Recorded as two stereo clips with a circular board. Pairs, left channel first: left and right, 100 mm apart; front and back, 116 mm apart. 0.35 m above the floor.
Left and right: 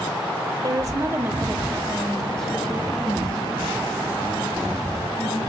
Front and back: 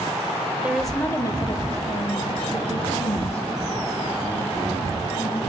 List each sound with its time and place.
0.6 s a woman speaking: 110° right, 1.1 m; by 5.4 s 20° left, 5.5 m